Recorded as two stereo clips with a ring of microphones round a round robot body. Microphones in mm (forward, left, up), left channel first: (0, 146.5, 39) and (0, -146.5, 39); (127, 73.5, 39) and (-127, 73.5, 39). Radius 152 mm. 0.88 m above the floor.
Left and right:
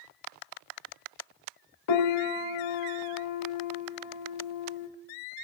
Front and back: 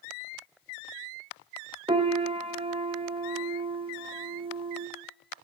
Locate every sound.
1.9 s a piano: 110° left, 0.9 m